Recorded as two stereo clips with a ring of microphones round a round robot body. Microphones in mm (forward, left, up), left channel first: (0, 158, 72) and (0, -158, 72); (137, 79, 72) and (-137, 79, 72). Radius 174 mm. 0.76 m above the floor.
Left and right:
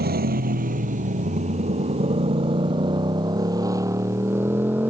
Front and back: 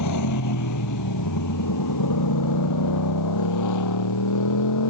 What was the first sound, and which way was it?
A motorcycle, 30° right.